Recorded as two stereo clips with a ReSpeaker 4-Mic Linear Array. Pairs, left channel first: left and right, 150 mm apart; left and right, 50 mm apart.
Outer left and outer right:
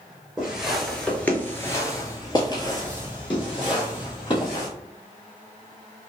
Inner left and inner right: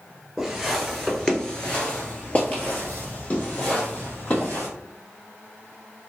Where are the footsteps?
5° right (ahead or behind), 1.6 m; by 4.7 s 35° left (ahead or behind), 3.5 m.